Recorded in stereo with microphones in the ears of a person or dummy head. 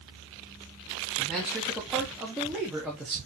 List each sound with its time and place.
1.2 s a man speaking: centre (ahead or behind), 1.2 m